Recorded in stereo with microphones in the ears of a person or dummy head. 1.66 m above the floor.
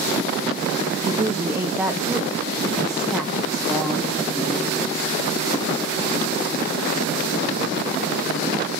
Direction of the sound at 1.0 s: 15° right (ahead or behind).